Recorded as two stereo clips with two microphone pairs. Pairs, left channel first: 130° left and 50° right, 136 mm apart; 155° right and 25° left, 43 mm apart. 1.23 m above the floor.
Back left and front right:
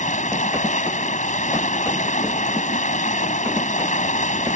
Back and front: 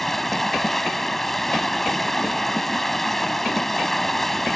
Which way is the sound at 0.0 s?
120° left.